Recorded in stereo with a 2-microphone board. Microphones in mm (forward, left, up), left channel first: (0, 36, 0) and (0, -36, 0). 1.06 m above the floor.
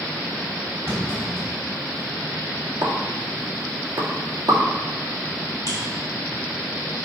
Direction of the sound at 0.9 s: 35° right (ahead or behind).